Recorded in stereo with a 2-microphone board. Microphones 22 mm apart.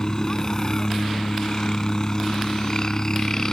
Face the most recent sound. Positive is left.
turn(degrees=30)  # may be behind; listen again after turning